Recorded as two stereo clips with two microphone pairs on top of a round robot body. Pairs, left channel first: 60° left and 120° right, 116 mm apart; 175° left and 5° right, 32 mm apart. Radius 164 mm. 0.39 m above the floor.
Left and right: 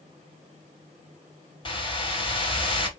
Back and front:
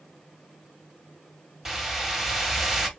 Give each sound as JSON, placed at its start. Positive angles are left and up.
{"t": 1.6, "sound": "a whoosh", "azimuth_deg": 80, "distance_m": 2.0}